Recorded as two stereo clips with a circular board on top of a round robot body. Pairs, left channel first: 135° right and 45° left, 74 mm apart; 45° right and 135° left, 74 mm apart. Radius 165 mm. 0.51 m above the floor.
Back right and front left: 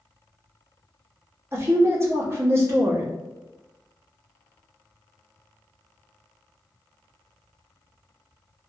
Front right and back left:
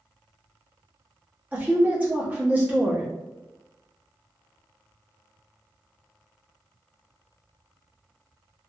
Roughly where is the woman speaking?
Left.